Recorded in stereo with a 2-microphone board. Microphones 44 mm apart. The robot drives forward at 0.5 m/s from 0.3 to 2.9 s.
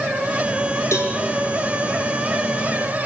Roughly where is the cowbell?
Left.